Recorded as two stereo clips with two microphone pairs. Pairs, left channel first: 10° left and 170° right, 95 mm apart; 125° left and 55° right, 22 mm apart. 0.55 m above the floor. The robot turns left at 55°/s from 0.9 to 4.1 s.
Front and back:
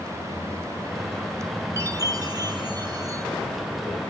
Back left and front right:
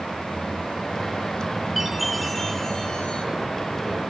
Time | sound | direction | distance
1.8 | a chime | 130° right | 1.7 m